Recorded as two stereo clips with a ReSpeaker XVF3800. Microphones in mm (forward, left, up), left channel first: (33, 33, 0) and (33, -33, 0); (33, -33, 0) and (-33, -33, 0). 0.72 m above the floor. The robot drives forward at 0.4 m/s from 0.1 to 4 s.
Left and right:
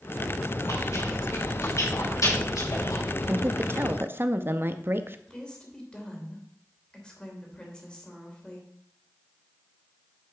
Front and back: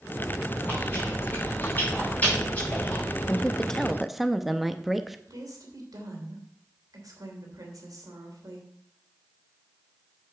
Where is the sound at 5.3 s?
165° left, 3 m.